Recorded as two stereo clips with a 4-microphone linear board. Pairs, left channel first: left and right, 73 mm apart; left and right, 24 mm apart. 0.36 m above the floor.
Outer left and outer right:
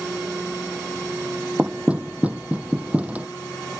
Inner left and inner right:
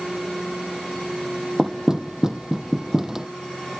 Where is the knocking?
20° right (ahead or behind).